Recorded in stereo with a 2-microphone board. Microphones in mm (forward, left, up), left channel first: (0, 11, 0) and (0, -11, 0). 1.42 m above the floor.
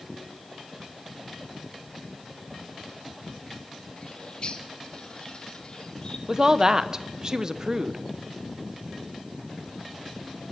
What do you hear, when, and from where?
4.0 s a bird: 40° left (ahead or behind), 1.0 m
6.3 s a woman speaking: 30° right (ahead or behind), 0.8 m